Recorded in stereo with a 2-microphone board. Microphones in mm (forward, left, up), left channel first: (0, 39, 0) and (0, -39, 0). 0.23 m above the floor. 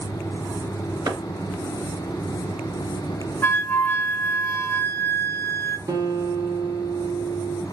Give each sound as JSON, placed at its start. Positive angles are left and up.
{"t": 1.1, "sound": "a clap", "side_deg": -60, "distance_m": 2.5}
{"t": 3.4, "sound": "a flute", "side_deg": 30, "distance_m": 0.8}
{"t": 5.9, "sound": "a guitar", "side_deg": -65, "distance_m": 1.7}